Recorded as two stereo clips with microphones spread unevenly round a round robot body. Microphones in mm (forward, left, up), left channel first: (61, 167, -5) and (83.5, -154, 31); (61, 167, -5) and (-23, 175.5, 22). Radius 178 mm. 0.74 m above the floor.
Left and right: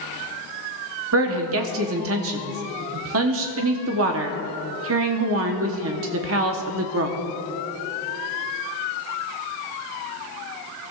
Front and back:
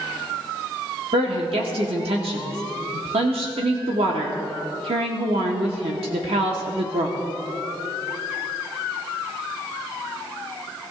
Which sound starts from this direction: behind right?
A woman speaking, at 1.1 s.